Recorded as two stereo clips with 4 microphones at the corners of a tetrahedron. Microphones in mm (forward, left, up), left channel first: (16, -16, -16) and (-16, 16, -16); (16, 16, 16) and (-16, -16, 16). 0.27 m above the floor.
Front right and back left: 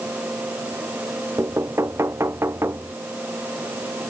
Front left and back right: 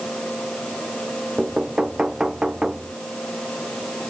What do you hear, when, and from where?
1.4 s knocking: 150° left